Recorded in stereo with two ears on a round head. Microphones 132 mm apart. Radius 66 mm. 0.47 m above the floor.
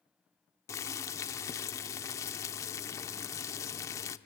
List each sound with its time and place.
0.7 s boiling: 20° left (ahead or behind), 0.6 m